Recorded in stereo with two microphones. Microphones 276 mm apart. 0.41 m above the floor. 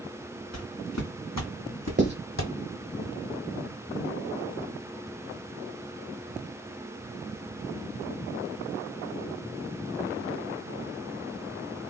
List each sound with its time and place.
0.5 s footsteps: 65° left (ahead or behind), 1.6 m; by 2.5 s 45° left (ahead or behind), 0.8 m
2.0 s writing: 40° right (ahead or behind), 1.0 m